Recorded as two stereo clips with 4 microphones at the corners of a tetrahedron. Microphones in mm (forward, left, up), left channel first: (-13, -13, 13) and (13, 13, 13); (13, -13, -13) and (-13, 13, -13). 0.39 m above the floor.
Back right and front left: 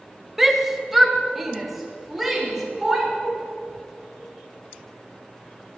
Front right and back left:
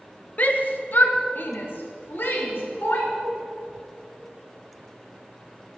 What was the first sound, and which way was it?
A shout, 35° right.